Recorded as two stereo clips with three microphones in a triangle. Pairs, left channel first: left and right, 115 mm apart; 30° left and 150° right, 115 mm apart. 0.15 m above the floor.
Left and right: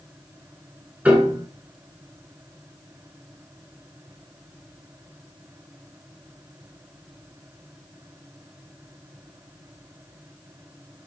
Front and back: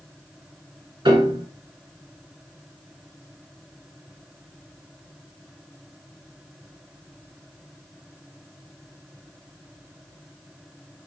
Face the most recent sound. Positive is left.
turn(degrees=-160)